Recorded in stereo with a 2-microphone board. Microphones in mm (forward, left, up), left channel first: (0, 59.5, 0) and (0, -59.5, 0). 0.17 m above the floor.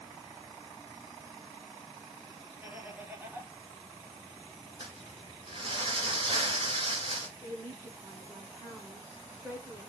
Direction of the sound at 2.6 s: 15° right (ahead or behind).